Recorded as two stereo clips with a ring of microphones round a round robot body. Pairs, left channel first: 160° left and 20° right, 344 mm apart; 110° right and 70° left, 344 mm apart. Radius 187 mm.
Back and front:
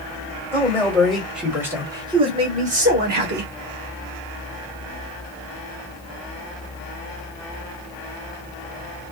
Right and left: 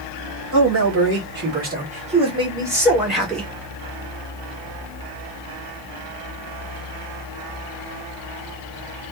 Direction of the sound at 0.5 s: 80° left.